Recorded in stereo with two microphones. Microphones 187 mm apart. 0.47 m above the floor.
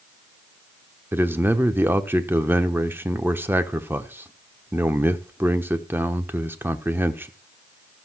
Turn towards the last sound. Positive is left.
turn(degrees=-10)  # may be behind; listen again after turning